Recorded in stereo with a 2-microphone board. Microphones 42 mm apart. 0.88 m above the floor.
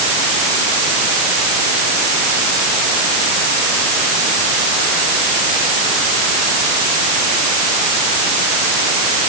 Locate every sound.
Only background noise.